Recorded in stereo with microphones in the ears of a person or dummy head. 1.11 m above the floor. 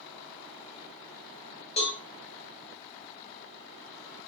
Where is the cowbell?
40° left (ahead or behind), 2.0 m.